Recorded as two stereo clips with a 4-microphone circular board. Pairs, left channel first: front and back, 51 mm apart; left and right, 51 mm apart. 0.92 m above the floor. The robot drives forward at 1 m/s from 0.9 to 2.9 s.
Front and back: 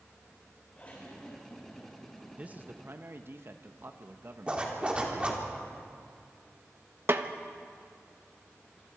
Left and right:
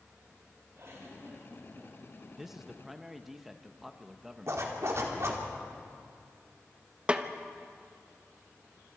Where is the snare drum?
155° right, 0.9 m.